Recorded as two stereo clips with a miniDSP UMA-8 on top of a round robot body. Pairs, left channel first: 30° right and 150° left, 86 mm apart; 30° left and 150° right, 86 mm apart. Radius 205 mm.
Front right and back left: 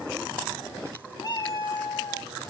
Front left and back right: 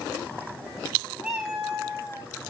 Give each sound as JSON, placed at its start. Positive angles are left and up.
{"t": 1.2, "sound": "a cat meowing", "azimuth_deg": -70, "distance_m": 2.0}